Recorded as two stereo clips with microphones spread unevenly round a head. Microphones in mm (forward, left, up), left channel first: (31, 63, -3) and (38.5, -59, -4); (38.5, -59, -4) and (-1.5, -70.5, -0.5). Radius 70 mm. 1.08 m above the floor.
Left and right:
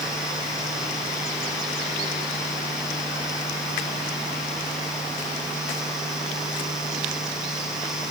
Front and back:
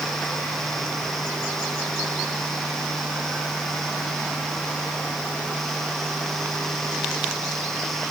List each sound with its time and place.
Only background noise.